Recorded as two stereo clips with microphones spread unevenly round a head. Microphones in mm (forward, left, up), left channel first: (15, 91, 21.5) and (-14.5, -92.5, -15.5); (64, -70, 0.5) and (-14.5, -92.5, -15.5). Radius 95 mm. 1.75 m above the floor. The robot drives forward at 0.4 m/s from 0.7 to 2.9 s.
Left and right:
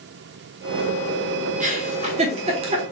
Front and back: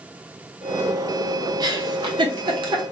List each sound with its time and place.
1.6 s a giggle: 150° right, 0.8 m; by 2.8 s 165° right, 1.1 m